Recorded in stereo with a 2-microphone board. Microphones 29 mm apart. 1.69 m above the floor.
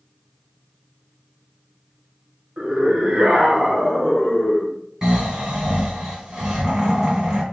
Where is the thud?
No thud in this recording.